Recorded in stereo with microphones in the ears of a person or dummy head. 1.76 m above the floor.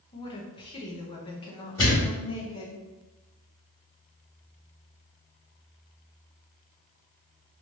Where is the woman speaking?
25° left (ahead or behind), 0.8 m.